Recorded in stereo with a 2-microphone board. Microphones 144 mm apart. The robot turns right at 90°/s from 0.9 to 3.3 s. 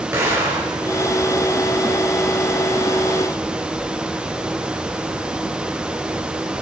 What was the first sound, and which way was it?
An explosion, 20° right (ahead or behind).